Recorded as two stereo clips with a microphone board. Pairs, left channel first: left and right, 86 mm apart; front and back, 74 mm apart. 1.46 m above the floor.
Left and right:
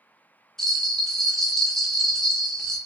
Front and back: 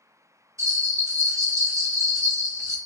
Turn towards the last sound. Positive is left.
turn(degrees=170)